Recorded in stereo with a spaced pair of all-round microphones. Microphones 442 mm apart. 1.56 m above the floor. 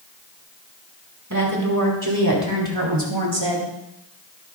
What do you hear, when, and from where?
1.3 s a woman speaking: 40° right (ahead or behind), 4.5 m; by 3.7 s 80° right, 2.5 m